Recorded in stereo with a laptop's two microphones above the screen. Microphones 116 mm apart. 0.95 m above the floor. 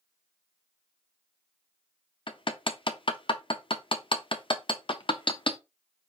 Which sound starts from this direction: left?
Hammering, at 2.3 s.